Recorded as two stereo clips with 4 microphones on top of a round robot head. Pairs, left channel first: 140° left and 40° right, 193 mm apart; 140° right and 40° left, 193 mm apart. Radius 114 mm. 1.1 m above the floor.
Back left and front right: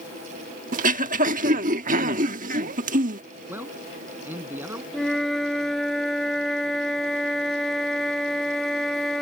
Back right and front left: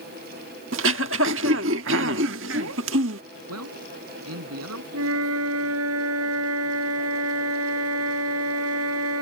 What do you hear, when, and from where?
0.7 s throat clearing: 10° left
3.5 s a man speaking: 40° left
4.9 s a flute: 50° left